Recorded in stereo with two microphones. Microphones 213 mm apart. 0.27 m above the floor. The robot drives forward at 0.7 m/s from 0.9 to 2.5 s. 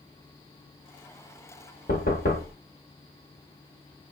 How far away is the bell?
No bell in this recording.